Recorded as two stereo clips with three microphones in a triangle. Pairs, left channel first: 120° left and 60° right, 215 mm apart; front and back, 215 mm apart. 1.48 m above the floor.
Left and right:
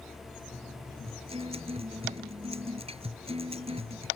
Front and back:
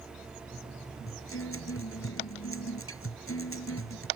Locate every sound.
1.1 s a guitar: 5° left